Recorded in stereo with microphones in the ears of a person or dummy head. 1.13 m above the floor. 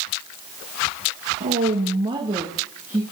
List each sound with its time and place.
1.4 s a woman speaking: 50° right (ahead or behind), 1.5 m; by 3.0 s 15° right (ahead or behind), 2 m